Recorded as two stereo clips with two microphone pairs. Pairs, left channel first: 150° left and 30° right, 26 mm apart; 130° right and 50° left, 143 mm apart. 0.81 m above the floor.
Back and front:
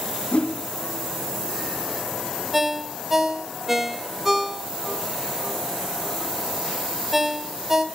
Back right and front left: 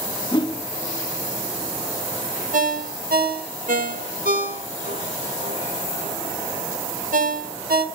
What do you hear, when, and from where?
0.3 s a whoosh: straight behind, 1.5 m
2.5 s a ringtone: 50° left, 1.2 m